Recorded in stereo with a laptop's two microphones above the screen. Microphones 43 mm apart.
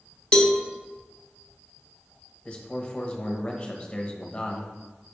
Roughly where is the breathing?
No breathing in this recording.